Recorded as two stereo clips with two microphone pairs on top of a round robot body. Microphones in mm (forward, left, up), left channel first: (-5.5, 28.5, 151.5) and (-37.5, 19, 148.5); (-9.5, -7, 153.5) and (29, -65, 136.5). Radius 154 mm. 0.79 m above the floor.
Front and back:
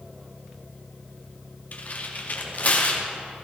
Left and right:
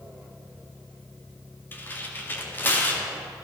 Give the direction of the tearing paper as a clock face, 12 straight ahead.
10 o'clock.